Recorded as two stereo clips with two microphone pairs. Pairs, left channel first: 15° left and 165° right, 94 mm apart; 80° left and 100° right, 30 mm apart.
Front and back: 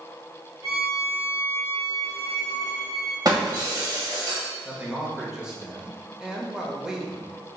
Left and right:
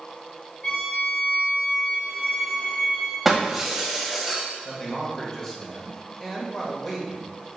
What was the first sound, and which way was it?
A violin, 140° left.